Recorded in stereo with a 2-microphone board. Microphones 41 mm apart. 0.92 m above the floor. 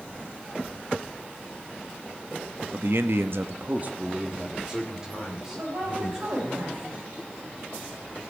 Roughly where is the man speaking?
Right.